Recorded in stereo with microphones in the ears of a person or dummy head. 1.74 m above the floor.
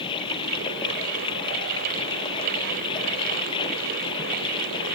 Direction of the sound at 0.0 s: 25° left (ahead or behind).